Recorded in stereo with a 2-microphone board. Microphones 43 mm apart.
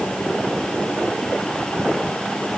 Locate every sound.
Only background noise.